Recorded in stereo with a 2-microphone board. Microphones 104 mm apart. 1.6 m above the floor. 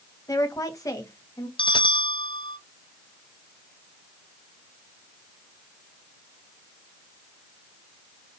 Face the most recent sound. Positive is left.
turn(degrees=45)  # may be behind; listen again after turning